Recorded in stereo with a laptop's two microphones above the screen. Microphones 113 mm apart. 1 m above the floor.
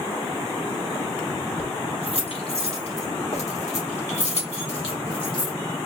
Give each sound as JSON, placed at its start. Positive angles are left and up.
{"t": 1.6, "sound": "keys jangling", "side_deg": 50, "distance_m": 2.5}